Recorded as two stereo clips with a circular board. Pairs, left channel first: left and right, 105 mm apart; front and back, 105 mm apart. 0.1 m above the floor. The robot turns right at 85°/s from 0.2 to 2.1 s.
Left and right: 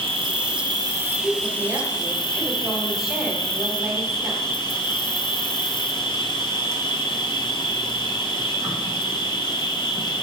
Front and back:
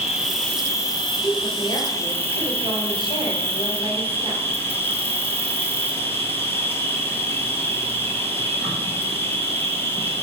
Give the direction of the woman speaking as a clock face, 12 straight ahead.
3 o'clock.